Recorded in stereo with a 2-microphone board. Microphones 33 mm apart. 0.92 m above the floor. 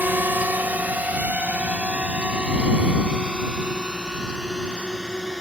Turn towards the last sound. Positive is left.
turn(degrees=-20)  # may be behind; listen again after turning